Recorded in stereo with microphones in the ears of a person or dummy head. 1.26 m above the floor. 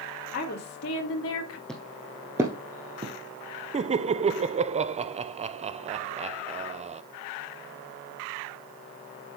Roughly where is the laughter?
Right.